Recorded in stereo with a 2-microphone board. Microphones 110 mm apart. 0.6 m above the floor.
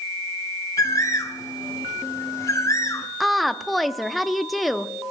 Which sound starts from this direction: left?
A bird, at 0.8 s.